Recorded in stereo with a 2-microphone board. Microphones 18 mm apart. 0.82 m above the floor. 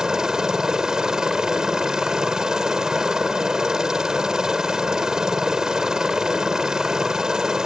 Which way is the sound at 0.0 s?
35° right (ahead or behind).